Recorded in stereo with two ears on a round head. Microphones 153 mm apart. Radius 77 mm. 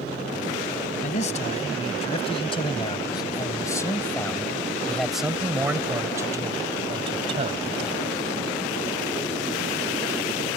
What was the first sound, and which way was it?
A man speaking, 40° left (ahead or behind).